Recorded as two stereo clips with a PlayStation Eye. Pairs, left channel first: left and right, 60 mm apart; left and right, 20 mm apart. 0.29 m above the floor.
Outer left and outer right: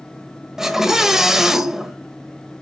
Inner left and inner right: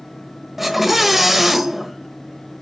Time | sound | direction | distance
0.6 | a scream | 10° right (ahead or behind) | 1.1 m